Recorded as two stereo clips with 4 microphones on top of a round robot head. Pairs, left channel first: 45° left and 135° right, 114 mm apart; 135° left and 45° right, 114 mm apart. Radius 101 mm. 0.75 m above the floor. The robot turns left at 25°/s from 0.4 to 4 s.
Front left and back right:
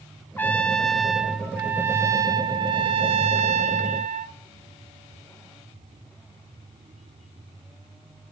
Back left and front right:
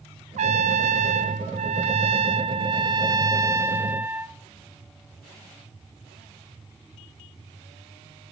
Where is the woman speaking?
I don't hear a woman speaking.